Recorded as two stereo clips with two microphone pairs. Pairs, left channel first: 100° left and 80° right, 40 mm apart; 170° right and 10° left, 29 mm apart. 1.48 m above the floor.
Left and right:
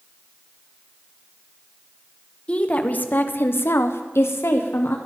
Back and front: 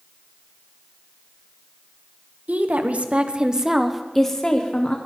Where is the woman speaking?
40° left, 1.1 m; by 5.0 s 135° left, 1.1 m.